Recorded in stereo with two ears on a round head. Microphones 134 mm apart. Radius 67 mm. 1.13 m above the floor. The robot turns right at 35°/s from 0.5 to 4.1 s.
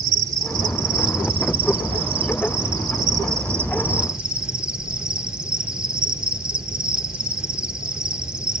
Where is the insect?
135° right, 0.8 m; by 8.6 s 10° right, 0.8 m.